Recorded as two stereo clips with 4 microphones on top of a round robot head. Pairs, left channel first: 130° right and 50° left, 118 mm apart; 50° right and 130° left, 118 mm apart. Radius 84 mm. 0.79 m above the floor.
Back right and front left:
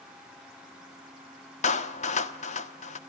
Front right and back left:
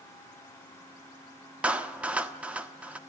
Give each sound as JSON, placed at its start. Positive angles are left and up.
{"t": 1.6, "sound": "a clap", "azimuth_deg": -150, "distance_m": 1.3}